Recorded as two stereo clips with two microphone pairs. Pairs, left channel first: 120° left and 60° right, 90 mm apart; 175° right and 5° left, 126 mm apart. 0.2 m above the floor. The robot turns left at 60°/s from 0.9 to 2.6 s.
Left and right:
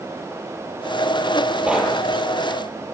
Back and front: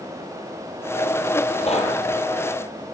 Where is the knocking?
140° right, 5.5 m; by 2.0 s 160° right, 5.5 m.